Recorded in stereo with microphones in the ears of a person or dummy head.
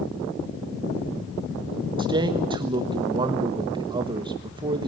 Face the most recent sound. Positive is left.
turn(degrees=-25)  # may be behind; listen again after turning